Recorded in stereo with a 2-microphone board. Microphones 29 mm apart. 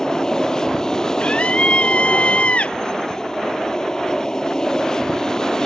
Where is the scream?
45° left (ahead or behind).